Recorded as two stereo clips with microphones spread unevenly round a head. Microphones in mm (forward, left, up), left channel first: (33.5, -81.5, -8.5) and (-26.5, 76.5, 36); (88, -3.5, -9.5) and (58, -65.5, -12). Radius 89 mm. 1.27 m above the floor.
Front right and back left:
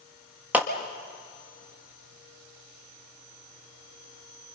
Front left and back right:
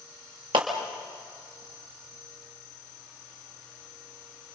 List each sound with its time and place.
0.5 s a clap: 165° right, 1.7 m